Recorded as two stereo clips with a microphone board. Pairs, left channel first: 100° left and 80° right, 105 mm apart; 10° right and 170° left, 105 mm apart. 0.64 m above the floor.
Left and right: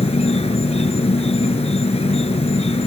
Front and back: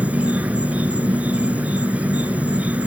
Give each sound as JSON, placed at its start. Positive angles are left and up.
{"t": 0.0, "sound": "an insect", "azimuth_deg": 95}